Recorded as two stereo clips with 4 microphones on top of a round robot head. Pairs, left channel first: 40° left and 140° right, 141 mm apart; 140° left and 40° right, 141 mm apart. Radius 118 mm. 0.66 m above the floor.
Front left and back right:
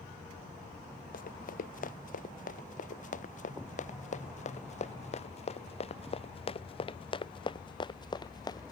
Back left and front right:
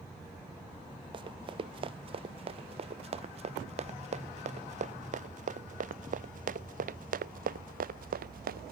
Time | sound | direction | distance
1.1 | running footsteps | 15° left | ?